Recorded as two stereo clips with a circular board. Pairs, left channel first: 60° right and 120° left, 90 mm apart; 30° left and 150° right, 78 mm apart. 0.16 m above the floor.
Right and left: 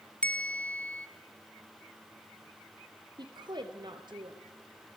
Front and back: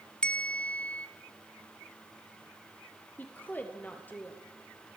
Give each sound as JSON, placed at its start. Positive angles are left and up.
{"t": 0.2, "sound": "a bell", "azimuth_deg": -20, "distance_m": 1.7}
{"t": 3.2, "sound": "a woman speaking", "azimuth_deg": 95, "distance_m": 3.0}